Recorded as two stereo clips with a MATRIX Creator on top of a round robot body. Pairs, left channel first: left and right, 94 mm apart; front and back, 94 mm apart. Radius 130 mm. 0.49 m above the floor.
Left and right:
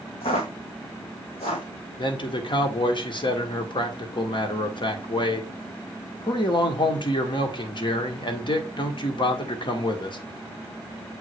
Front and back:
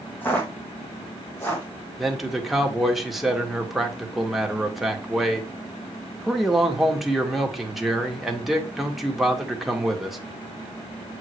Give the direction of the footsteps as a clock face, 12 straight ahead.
10 o'clock.